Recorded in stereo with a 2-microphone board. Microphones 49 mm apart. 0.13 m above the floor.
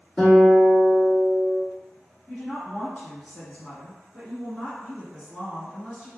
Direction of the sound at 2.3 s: 20° left (ahead or behind).